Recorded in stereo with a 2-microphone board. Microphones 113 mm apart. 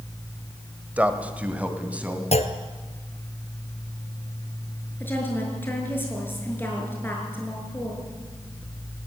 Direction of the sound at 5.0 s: 20° left (ahead or behind).